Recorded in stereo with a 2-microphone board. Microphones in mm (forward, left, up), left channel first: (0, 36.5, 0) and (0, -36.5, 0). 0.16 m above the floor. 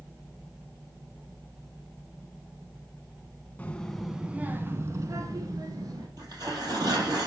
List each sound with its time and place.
3.6 s a child speaking: 20° left (ahead or behind), 0.9 m; by 6.1 s 65° right (ahead or behind), 1.8 m
6.2 s tearing paper: 60° right (ahead or behind), 3 m